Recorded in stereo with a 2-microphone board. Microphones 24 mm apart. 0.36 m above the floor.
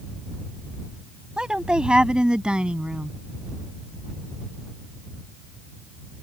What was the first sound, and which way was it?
A woman speaking, 40° right (ahead or behind).